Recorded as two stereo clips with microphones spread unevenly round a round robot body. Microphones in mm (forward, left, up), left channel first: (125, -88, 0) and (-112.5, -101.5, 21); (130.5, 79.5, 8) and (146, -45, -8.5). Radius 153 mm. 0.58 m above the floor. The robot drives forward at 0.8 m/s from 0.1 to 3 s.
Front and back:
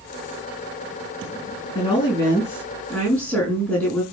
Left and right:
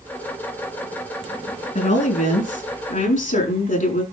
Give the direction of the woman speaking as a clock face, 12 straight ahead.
9 o'clock.